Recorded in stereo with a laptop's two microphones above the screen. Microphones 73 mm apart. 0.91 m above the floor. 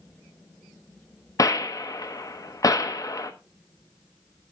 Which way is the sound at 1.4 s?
50° left (ahead or behind).